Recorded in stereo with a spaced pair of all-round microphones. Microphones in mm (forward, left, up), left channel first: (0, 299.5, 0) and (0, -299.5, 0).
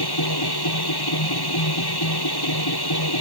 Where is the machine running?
40° left (ahead or behind).